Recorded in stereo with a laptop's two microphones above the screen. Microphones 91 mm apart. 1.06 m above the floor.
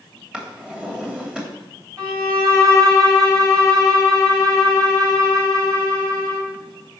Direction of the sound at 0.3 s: 10° right (ahead or behind).